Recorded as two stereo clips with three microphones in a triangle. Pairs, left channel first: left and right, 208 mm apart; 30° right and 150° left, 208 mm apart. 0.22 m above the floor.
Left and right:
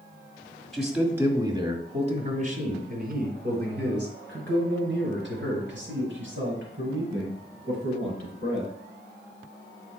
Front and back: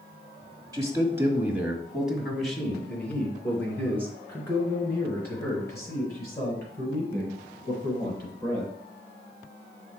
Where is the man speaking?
175° left, 1.4 m; by 8.7 s 105° right, 6 m.